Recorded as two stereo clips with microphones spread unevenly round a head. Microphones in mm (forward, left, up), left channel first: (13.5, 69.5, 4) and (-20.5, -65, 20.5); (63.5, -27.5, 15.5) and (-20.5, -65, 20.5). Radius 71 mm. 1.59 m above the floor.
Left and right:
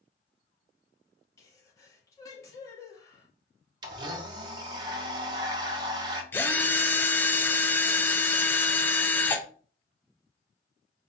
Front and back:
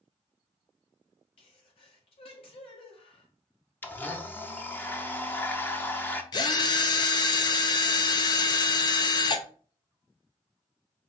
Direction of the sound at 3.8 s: 45° right.